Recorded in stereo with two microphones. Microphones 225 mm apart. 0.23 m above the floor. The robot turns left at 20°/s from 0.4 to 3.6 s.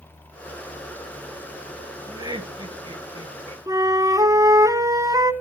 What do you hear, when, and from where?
2.1 s laughter: 15° right (ahead or behind), 1.1 m; by 3.6 s 25° right (ahead or behind), 1.1 m
3.7 s a flute: 15° right (ahead or behind), 0.7 m